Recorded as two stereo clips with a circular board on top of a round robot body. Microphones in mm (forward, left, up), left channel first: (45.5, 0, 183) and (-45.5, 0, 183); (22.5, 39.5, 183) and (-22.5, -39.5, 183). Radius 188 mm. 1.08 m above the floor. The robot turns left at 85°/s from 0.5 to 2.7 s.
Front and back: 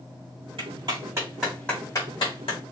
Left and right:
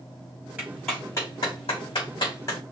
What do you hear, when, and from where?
0.6 s a clap: 170° left, 3.5 m; by 2.6 s straight ahead, 3.5 m